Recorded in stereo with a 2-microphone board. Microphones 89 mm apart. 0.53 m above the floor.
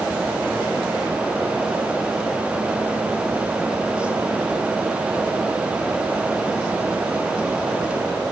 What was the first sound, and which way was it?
Only background noise.